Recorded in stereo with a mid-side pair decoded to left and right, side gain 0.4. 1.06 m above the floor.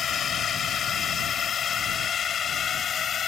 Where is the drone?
60° left; by 3.3 s 55° left.